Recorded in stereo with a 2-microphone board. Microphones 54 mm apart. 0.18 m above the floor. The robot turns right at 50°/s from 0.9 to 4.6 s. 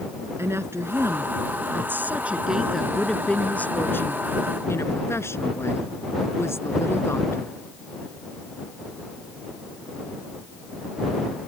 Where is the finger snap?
I don't hear a finger snap.